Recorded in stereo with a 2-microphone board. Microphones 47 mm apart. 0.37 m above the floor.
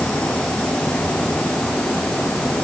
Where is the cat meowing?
I don't hear a cat meowing.